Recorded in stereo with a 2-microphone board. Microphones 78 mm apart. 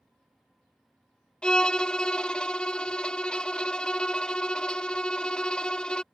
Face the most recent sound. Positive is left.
turn(degrees=10)  # may be behind; listen again after turning